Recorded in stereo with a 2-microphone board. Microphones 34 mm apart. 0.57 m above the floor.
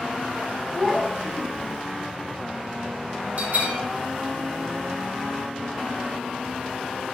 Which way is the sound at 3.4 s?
55° right (ahead or behind).